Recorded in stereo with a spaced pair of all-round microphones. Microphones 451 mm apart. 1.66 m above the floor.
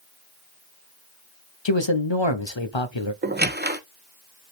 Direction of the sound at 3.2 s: 20° right (ahead or behind).